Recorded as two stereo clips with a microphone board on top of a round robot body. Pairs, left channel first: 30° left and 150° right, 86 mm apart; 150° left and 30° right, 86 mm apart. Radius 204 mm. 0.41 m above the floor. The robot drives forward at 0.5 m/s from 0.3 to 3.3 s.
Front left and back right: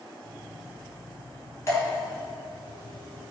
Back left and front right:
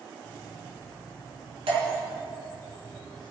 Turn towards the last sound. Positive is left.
turn(degrees=-35)